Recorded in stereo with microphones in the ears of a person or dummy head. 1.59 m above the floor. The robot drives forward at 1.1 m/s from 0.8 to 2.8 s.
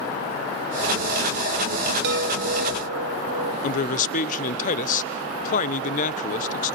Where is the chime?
70° right (ahead or behind), 1.5 m; by 3.5 s 65° right (ahead or behind), 1.5 m.